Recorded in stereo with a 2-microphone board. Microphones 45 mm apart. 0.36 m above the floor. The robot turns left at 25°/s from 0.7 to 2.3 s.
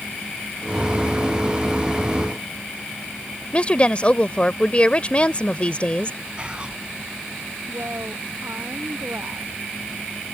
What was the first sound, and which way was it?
A woman speaking, 30° left (ahead or behind).